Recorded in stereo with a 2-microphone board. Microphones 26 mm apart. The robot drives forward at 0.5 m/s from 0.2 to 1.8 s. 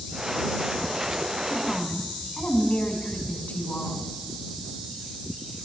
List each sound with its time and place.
1.5 s a woman speaking: 50° left (ahead or behind), 5.5 m